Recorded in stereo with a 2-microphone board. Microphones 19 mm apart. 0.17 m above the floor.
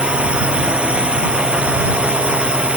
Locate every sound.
0.0 s a drone: 80° right; by 2.8 s 85° right